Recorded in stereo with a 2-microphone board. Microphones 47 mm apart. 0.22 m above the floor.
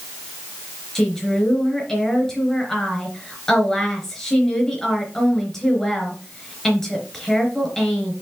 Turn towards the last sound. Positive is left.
turn(degrees=10)  # may be behind; listen again after turning